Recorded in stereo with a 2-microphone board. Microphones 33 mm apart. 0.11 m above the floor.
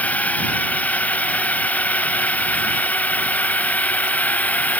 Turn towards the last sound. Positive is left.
turn(degrees=45)  # may be behind; listen again after turning